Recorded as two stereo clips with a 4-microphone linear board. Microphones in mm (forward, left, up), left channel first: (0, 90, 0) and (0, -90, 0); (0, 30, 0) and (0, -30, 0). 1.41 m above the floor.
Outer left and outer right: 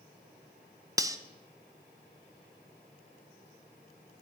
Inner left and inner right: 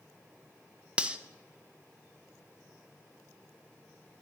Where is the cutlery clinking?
20° right (ahead or behind), 0.5 m.